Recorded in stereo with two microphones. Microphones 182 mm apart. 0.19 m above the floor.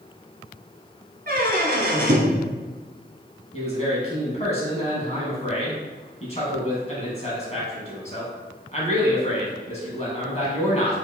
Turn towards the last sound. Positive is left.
turn(degrees=40)  # may be behind; listen again after turning